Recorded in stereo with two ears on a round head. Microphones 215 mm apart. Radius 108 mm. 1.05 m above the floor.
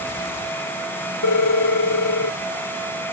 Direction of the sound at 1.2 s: 80° left.